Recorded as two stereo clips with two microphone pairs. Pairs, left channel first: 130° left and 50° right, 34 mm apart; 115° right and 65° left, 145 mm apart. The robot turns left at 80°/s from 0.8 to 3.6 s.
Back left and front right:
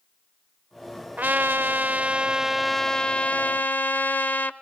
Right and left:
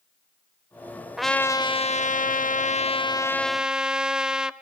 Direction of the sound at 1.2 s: 20° right.